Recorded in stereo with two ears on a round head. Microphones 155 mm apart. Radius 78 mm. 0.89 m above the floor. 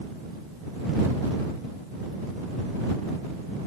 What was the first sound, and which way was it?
Only background noise.